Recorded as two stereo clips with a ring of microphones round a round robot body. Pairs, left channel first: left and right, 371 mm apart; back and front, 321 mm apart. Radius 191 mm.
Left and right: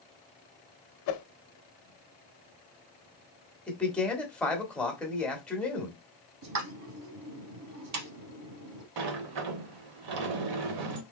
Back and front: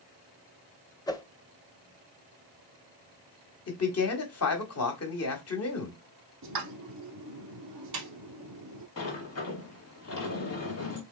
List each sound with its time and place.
1.1 s a whoosh: 105° left, 0.6 m
3.7 s a man speaking: 175° left, 1.3 m
6.4 s a pop: 45° right, 0.7 m
9.0 s a sliding door: 125° right, 0.7 m